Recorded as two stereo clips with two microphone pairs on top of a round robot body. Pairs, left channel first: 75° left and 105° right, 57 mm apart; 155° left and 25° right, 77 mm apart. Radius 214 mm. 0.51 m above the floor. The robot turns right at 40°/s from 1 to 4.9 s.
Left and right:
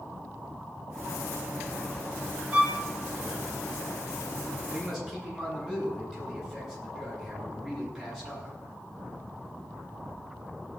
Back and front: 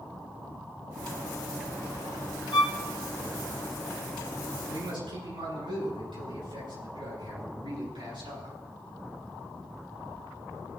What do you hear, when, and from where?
2.5 s a violin: 170° right, 1.0 m; by 2.7 s 160° right, 1.0 m
4.7 s a man speaking: 25° right, 8 m; by 8.6 s 20° right, 8 m